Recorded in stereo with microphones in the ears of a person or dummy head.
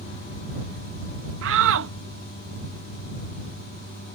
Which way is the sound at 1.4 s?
75° right (ahead or behind).